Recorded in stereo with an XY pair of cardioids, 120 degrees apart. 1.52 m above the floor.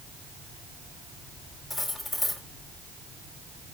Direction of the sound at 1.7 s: 15° left.